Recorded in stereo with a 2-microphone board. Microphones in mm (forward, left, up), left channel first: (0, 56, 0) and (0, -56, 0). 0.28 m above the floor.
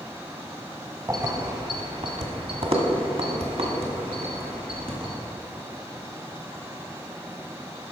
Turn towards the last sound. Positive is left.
turn(degrees=-55)  # may be behind; listen again after turning